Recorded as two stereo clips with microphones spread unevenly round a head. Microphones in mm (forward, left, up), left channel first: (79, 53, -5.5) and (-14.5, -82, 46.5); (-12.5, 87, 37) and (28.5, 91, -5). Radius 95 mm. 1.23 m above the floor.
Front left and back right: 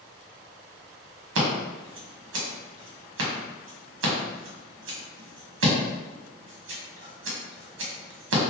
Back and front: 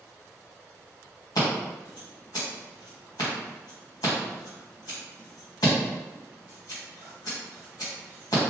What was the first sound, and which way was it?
Scissors, 115° right.